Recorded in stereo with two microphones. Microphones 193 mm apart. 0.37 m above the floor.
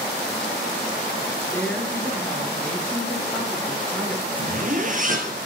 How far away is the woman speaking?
About 5.5 m.